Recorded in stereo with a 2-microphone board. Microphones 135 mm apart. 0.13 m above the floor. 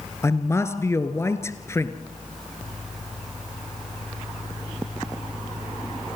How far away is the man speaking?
About 1.5 m.